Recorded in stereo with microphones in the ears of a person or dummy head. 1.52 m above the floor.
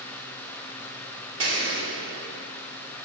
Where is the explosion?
75° right (ahead or behind), 2.5 m.